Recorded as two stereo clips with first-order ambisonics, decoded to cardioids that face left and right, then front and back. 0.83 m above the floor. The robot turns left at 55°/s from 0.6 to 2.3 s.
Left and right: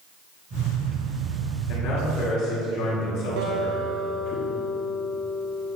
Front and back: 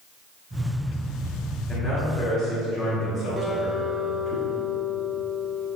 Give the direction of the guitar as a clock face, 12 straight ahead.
3 o'clock.